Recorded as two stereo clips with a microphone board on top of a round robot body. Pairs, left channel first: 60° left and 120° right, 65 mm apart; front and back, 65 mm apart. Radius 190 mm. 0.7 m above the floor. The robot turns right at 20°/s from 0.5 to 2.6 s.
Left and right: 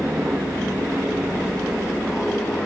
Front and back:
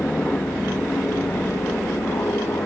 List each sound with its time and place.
0.0 s an aircraft: 60° right; by 2.7 s 15° right